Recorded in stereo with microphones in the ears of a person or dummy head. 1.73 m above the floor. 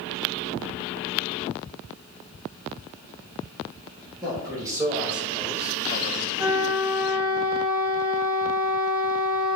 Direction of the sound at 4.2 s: 20° right (ahead or behind).